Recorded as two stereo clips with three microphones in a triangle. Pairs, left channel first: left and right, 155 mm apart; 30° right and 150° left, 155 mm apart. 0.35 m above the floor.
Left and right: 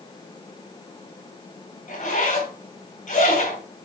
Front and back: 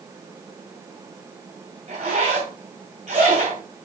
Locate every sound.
1.9 s a zipper: 115° left, 2.5 m